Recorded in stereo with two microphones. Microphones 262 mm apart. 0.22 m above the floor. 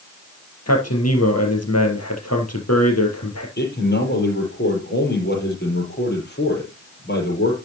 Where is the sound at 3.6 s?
40° left (ahead or behind), 6.5 m.